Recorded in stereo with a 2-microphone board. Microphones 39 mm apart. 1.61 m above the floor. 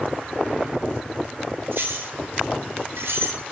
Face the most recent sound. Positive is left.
turn(degrees=-80)